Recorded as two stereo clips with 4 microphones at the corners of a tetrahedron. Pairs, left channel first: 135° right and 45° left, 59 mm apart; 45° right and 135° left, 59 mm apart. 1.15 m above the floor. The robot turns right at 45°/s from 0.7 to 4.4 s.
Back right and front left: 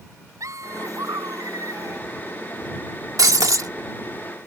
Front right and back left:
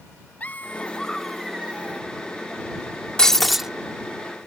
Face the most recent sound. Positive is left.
turn(degrees=85)